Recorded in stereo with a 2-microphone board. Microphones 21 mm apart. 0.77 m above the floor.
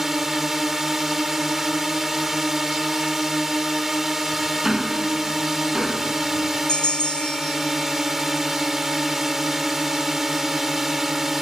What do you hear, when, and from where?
0.0 s a drone: 25° right (ahead or behind)
4.6 s ticking: 30° right (ahead or behind)
6.7 s a bell: 50° left (ahead or behind)